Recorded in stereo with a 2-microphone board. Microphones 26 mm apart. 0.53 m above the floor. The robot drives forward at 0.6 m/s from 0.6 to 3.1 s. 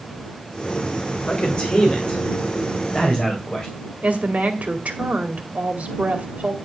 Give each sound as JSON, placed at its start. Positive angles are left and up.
{"t": 1.3, "sound": "a man speaking", "side_deg": 50, "distance_m": 2.0}
{"t": 4.0, "sound": "a woman speaking", "side_deg": -65, "distance_m": 2.5}